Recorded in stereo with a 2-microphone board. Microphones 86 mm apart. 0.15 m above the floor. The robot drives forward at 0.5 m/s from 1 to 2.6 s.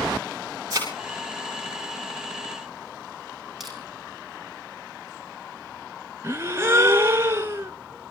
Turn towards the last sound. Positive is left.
turn(degrees=-30)  # may be behind; listen again after turning